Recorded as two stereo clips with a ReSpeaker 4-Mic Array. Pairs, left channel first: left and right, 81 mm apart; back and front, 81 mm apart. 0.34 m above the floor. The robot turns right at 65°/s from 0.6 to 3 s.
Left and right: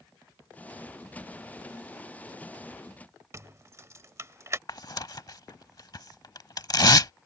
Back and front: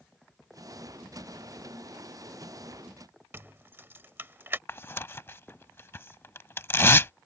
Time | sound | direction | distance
3.3 | keys jangling | 50° right | ?
4.7 | tearing paper | 120° left | ?